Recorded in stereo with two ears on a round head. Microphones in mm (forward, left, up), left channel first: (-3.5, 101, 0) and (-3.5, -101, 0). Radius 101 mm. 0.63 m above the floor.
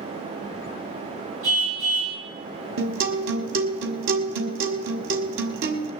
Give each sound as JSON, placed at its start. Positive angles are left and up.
{"t": 1.4, "sound": "a car horn", "side_deg": -65, "distance_m": 6.0}
{"t": 2.8, "sound": "a guitar", "side_deg": -60, "distance_m": 1.5}